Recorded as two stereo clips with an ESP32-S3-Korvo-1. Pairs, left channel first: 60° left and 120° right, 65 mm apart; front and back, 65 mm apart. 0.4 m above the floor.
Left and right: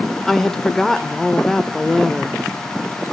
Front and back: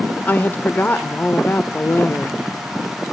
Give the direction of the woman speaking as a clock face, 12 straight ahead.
1 o'clock.